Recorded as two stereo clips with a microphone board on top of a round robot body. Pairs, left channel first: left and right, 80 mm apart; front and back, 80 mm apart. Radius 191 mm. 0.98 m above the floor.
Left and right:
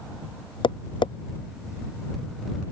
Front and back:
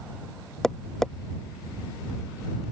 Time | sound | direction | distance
0.6 | tapping | 85° left | ?